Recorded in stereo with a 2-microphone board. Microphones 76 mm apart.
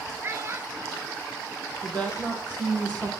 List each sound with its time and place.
0.2 s a child speaking: 35° right (ahead or behind), 1.4 m
1.8 s a woman speaking: 15° left (ahead or behind), 5 m